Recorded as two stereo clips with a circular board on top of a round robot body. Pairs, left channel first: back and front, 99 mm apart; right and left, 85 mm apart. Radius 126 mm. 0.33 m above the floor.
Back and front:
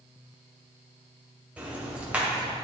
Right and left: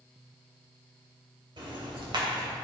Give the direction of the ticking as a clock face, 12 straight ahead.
9 o'clock.